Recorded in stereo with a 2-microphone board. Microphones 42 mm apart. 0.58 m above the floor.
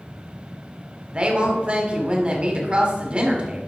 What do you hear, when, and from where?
1.1 s a woman speaking: 30° right (ahead or behind), 1.8 m